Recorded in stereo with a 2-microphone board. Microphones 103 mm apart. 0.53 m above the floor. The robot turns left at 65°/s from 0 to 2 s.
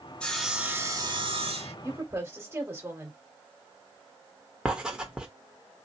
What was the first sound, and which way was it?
Sawing, 10° left.